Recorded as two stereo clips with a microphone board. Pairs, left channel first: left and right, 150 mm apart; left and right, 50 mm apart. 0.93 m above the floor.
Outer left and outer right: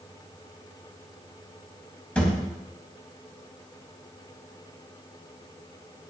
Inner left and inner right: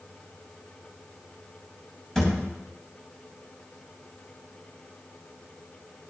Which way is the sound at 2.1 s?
10° left (ahead or behind).